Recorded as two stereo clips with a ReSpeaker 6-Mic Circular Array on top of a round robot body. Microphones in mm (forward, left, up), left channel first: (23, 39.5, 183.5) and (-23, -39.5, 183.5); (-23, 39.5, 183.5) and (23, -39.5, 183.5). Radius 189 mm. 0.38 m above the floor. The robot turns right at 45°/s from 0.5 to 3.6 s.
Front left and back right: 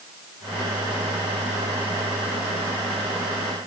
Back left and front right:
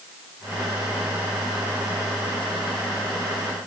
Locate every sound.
Only background noise.